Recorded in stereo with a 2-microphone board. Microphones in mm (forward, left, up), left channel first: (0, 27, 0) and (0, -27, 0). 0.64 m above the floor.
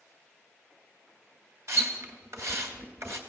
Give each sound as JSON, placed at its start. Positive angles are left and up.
{"t": 1.7, "sound": "a splash", "side_deg": -60, "distance_m": 2.5}